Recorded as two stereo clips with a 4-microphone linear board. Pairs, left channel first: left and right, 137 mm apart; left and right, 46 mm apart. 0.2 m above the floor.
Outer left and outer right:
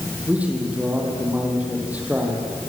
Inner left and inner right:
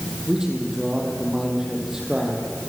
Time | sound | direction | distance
0.3 | a man speaking | 10° right (ahead or behind) | 6 m